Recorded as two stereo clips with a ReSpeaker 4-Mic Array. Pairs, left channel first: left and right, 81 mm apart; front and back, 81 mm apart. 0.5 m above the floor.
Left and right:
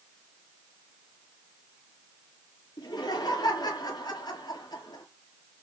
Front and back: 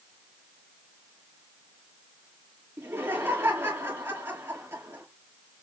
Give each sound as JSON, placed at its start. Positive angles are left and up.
{"t": 2.8, "sound": "laughter", "azimuth_deg": 125, "distance_m": 10.0}